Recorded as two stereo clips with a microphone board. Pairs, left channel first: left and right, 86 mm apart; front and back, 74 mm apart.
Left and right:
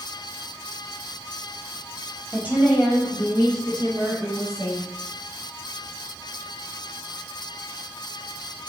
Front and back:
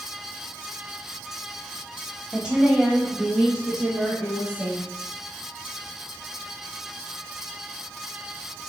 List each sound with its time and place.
2.3 s a woman speaking: 120° right, 1.1 m; by 4.8 s 105° right, 2.5 m